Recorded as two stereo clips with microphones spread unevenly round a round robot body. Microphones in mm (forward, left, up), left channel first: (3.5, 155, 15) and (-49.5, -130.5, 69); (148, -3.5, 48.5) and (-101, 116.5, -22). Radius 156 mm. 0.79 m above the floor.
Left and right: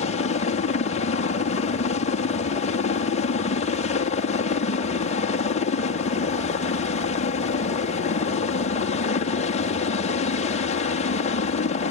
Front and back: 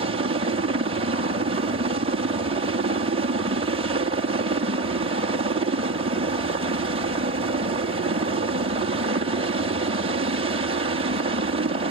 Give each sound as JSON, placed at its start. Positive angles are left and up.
{"t": 0.0, "sound": "a helicopter", "azimuth_deg": 120}